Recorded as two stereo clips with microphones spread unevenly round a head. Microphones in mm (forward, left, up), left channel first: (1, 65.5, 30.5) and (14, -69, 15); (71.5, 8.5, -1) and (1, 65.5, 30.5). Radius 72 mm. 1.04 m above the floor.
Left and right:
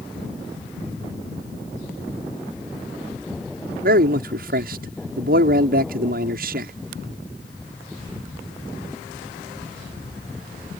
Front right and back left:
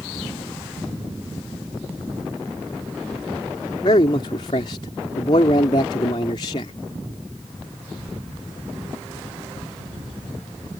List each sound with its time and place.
3.8 s a man speaking: 85° right